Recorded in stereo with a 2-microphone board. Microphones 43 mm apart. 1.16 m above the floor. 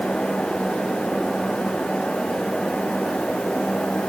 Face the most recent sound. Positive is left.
No sound to turn to.